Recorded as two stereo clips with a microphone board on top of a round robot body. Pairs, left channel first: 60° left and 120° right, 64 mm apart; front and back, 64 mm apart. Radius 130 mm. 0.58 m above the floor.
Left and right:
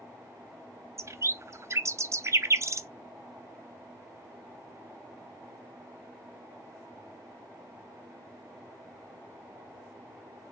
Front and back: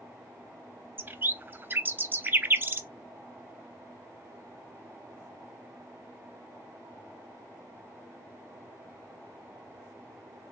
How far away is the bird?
About 0.6 m.